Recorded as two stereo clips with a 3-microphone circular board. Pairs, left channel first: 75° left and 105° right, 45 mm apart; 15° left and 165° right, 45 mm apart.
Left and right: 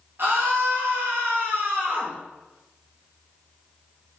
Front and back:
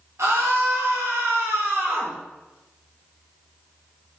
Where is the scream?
145° right, 2 m.